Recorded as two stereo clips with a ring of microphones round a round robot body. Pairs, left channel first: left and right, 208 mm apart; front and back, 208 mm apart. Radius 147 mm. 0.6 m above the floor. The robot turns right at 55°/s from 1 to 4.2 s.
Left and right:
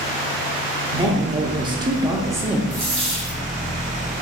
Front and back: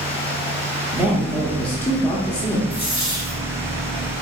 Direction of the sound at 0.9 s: 110° right.